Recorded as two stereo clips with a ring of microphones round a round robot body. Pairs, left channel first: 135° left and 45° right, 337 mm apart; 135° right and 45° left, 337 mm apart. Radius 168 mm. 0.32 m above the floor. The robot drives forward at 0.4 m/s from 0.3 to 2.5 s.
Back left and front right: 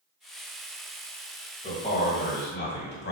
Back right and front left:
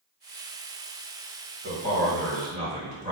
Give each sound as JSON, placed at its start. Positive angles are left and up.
{"t": 1.6, "sound": "a man speaking", "azimuth_deg": 75, "distance_m": 1.4}